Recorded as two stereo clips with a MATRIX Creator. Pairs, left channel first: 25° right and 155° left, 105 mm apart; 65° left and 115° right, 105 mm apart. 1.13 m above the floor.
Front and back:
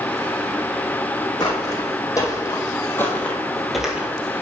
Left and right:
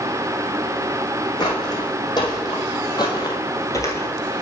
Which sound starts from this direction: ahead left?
Footsteps, at 1.4 s.